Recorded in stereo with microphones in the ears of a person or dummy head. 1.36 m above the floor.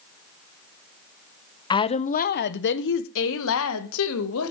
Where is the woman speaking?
25° left (ahead or behind), 0.6 m; by 4.5 s 85° left, 1.8 m.